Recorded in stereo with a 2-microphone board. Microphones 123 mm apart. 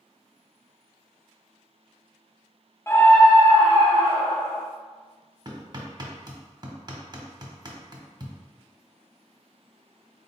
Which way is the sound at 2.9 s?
20° left (ahead or behind).